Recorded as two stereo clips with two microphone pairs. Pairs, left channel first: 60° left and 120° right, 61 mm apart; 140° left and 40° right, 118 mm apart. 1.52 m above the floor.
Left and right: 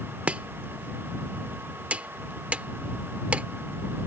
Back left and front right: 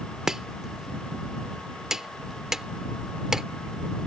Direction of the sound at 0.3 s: 115° right.